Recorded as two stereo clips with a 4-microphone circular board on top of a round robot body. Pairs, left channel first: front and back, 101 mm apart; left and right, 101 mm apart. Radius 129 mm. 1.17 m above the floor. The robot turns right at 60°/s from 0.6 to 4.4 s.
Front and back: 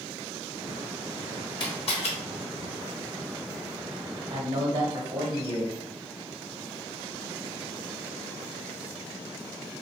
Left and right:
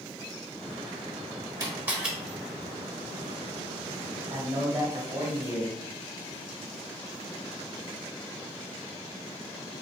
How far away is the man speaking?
About 1.6 m.